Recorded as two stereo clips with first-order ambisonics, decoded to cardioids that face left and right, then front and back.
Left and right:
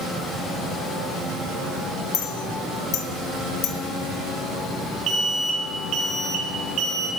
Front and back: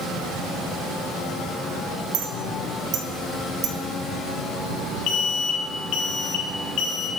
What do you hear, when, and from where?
2.1 s a clink: 135° left, 0.7 m
5.1 s an alarm: 35° right, 0.7 m